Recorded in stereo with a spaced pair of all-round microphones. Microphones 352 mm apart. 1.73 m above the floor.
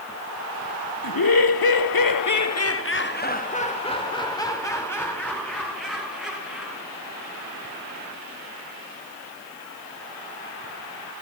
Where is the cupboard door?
No cupboard door in this recording.